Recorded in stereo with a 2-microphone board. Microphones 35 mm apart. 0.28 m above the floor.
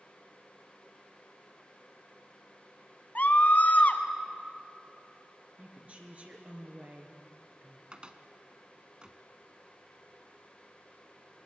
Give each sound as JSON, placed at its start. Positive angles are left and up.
{"t": 3.1, "sound": "a scream", "side_deg": 50, "distance_m": 2.0}
{"t": 5.6, "sound": "a woman speaking", "side_deg": -45, "distance_m": 3.5}
{"t": 7.9, "sound": "a cupboard door", "side_deg": -30, "distance_m": 1.2}